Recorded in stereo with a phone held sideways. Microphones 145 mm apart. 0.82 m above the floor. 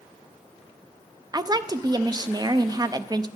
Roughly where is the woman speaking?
Right.